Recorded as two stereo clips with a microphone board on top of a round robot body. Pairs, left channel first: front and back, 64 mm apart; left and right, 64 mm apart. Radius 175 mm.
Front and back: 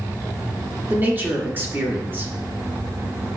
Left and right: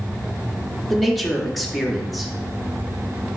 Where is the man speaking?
Straight behind, 1.1 m.